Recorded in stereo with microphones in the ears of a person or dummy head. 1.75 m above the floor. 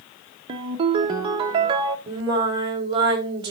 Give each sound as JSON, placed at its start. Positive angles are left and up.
{"t": 0.5, "sound": "a ringtone", "side_deg": -25, "distance_m": 1.2}
{"t": 2.1, "sound": "singing", "side_deg": -25, "distance_m": 4.5}